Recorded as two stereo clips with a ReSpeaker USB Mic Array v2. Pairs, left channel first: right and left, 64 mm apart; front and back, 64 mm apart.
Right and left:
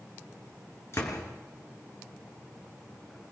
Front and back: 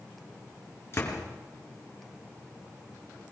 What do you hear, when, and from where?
0.9 s a door slam: 45° right, 4 m